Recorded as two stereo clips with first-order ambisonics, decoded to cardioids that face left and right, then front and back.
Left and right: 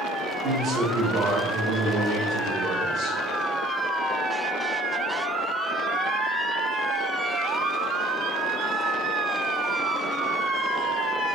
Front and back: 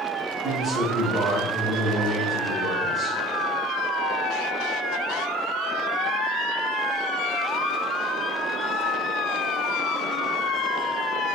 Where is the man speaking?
80° right, 1.1 m.